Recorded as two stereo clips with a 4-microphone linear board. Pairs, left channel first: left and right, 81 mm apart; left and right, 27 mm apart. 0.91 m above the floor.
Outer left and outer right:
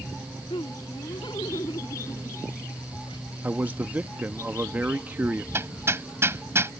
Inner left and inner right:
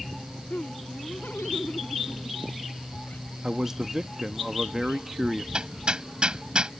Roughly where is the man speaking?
Right.